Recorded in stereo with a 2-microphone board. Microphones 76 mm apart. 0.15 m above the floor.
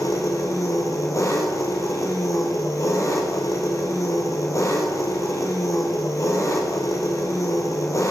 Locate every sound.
0.0 s an engine running: 45° left (ahead or behind), 2.5 m